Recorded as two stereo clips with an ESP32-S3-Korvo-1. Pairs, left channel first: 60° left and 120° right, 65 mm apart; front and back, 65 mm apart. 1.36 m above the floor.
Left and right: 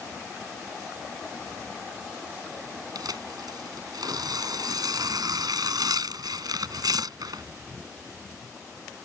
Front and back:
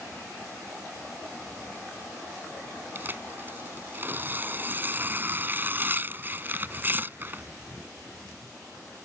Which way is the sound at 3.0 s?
120° right.